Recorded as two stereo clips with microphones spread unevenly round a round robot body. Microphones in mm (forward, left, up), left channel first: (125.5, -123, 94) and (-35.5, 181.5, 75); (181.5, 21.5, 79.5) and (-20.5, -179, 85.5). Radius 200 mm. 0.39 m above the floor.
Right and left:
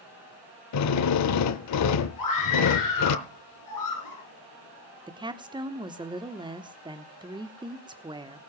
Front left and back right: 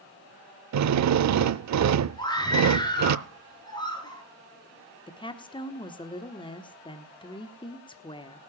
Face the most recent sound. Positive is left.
turn(degrees=75)